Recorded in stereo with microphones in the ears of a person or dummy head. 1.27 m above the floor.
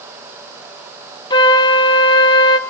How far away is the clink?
I don't hear a clink.